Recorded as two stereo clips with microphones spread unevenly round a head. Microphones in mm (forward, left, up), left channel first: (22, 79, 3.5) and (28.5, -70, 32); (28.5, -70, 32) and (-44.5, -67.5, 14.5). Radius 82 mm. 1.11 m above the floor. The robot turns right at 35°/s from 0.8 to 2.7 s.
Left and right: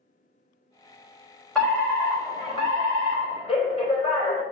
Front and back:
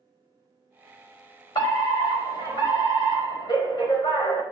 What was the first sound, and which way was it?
A fire alarm, 10° left.